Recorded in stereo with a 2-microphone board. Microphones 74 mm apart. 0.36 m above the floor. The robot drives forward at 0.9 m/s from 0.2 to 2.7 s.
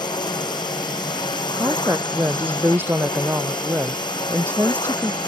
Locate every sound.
0.0 s a drone: 75° left (ahead or behind); by 5.3 s 85° left
1.5 s a woman speaking: 30° right (ahead or behind)